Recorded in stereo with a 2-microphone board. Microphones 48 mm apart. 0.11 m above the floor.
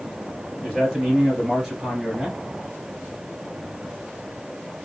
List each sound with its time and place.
0.6 s a man speaking: 15° left (ahead or behind), 2 m; by 2.4 s 5° right (ahead or behind), 1.7 m